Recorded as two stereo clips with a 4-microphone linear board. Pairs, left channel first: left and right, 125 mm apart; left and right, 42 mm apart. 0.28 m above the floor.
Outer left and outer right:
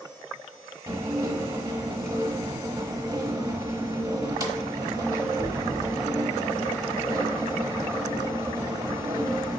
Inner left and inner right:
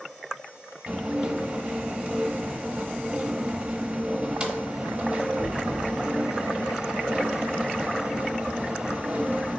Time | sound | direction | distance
0.9 | dishes clattering | 30° right (ahead or behind) | 0.8 m